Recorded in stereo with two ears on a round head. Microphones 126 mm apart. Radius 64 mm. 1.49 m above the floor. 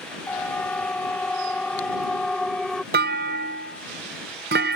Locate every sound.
0.3 s a siren: 10° left (ahead or behind); by 2.8 s 5° left (ahead or behind)
2.9 s a clunk: 75° right (ahead or behind)